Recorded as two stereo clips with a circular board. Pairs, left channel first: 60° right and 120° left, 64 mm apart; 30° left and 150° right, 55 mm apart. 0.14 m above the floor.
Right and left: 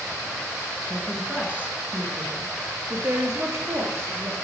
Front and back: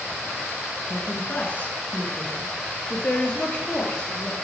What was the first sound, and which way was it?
A woman speaking, 50° left.